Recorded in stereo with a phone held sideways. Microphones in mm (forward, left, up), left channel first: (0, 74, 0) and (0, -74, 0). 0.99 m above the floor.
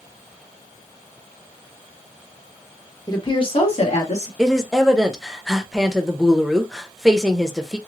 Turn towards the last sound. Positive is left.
turn(degrees=0)  # may be behind; listen again after turning